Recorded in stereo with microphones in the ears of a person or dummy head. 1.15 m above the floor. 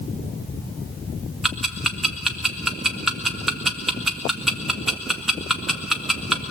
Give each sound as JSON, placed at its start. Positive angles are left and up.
{"t": 1.4, "sound": "ticking", "side_deg": 5, "distance_m": 1.2}